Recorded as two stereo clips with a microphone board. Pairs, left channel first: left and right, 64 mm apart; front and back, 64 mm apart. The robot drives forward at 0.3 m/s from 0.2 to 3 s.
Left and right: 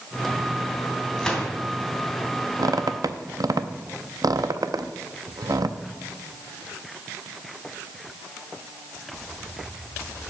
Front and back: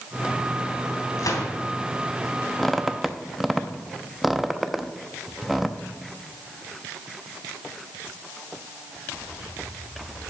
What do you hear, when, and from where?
1.2 s a gunshot: 10° left, 3 m
2.6 s a squeak: 80° right, 0.6 m; by 5.8 s 90° right, 0.6 m